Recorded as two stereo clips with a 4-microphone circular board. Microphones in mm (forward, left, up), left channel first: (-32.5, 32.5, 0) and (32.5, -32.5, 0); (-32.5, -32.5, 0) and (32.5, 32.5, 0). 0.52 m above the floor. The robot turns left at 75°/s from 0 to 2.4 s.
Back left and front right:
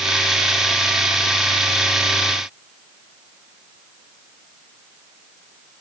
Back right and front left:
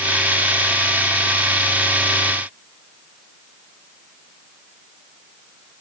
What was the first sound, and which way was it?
Only background noise.